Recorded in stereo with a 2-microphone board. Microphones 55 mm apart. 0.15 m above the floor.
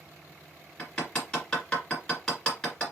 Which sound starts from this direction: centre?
Hammering, at 0.8 s.